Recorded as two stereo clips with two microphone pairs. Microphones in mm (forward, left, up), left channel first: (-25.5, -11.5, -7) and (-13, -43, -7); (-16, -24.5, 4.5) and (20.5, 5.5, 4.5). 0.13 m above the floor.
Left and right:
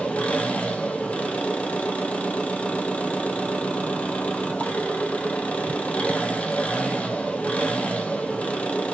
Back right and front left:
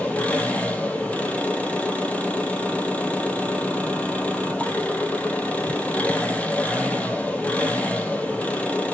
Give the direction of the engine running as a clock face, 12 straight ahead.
7 o'clock.